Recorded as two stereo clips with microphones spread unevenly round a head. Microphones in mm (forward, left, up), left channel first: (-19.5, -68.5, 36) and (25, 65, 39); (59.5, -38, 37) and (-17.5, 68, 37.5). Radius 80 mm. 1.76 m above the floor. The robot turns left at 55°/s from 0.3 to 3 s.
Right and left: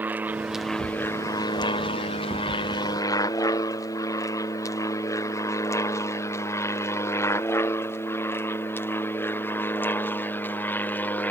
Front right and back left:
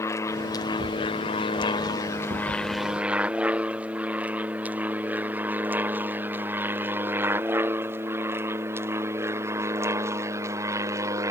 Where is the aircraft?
Straight ahead; by 11.3 s straight behind.